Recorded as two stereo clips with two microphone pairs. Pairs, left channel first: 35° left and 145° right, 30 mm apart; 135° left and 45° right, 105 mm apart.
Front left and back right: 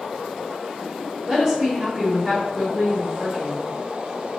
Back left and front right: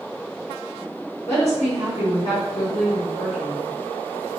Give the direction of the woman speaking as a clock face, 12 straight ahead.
7 o'clock.